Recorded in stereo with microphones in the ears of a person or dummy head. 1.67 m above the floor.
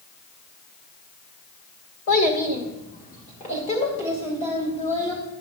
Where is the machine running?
No machine running in this recording.